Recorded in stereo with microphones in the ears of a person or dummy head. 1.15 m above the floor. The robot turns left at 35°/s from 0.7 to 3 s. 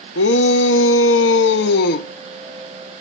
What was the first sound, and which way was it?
A shout, 105° left.